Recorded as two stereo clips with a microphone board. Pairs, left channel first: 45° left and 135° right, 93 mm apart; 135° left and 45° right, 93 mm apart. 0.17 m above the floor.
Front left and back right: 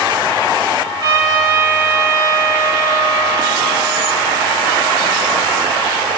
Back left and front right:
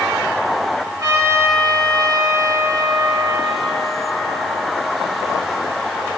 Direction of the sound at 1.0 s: 100° right.